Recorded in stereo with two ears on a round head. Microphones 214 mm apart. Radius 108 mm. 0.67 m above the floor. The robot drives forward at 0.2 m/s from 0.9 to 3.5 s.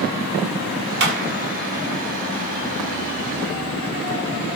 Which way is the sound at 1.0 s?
50° right (ahead or behind).